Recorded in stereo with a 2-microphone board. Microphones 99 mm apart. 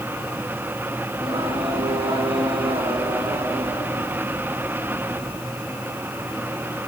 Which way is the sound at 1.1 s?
60° right (ahead or behind).